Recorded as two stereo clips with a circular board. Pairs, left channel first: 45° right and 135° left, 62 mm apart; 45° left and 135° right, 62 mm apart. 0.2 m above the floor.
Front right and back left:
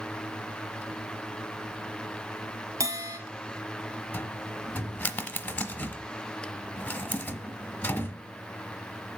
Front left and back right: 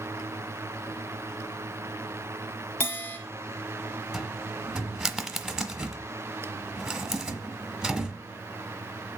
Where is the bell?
100° left, 2 m.